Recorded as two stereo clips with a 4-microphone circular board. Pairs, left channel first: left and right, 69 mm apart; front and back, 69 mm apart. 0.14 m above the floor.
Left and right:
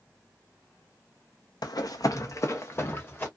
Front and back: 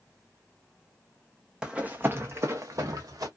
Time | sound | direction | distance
1.6 | running footsteps | 100° left | 0.6 m